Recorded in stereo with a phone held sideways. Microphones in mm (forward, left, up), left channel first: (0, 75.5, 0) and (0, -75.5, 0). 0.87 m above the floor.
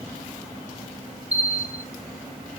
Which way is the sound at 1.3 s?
10° right (ahead or behind).